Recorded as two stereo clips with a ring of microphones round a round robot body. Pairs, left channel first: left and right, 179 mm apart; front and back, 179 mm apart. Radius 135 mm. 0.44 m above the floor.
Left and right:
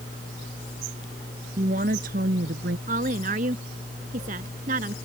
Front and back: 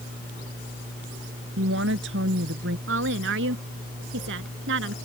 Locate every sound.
1.6 s a woman speaking: 150° right; by 2.8 s 140° right
2.9 s a woman speaking: 150° right